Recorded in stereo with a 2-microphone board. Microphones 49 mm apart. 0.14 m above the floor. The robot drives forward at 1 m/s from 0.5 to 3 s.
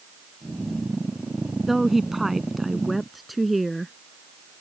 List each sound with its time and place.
1.7 s a woman speaking: 5° right (ahead or behind)